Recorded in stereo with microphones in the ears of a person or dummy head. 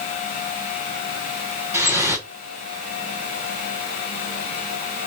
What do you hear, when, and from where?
1.7 s dripping: 15° right (ahead or behind), 1.3 m